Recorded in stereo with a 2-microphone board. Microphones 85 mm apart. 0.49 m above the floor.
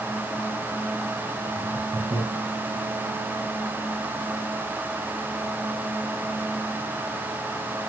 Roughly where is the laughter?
Right.